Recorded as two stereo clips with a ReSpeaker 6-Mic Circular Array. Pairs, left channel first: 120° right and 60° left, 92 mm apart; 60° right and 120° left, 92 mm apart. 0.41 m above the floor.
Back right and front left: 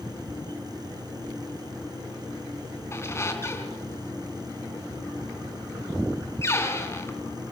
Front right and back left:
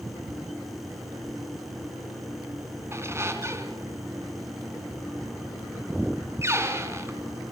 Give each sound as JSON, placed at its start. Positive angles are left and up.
{"t": 2.9, "sound": "a squeak", "azimuth_deg": 180, "distance_m": 3.0}